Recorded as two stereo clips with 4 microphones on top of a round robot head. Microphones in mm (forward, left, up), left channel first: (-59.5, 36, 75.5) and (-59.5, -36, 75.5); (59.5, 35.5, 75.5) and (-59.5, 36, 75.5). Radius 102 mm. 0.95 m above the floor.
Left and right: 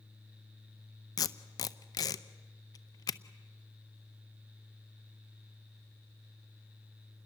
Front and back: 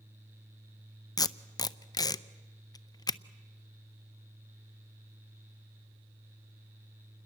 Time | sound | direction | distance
1.2 | tape being pulled | 60° left | 0.6 m